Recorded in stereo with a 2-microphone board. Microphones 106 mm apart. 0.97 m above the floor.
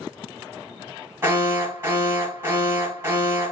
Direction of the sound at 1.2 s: 25° right (ahead or behind).